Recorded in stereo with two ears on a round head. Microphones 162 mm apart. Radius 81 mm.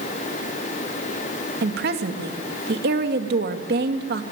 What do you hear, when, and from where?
1.6 s a woman speaking: 60° right (ahead or behind), 2.5 m